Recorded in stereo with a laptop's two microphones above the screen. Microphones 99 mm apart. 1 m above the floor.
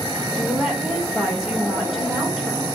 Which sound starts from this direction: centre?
A woman speaking, at 0.3 s.